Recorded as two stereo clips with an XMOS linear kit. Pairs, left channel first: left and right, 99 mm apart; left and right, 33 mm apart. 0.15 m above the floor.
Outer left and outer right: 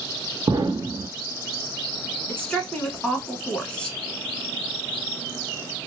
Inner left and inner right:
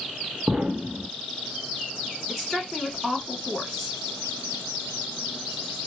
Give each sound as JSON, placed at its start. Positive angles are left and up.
{"t": 0.5, "sound": "an explosion", "side_deg": -45, "distance_m": 0.6}
{"t": 2.3, "sound": "a woman speaking", "side_deg": 10, "distance_m": 1.4}